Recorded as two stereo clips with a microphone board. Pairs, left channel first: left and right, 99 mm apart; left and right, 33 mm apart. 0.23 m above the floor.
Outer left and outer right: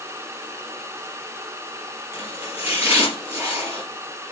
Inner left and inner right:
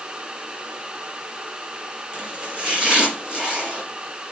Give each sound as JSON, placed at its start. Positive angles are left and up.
{"t": 2.1, "sound": "chopping", "side_deg": -25, "distance_m": 5.0}